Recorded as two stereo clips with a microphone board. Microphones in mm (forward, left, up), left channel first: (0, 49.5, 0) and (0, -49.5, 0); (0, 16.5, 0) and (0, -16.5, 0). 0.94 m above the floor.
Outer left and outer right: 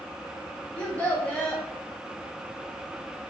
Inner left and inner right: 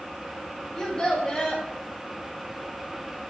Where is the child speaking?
15° left (ahead or behind), 1.2 m.